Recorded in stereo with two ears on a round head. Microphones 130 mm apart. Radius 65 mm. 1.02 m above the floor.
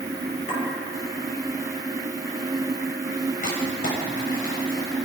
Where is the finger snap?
I don't hear a finger snap.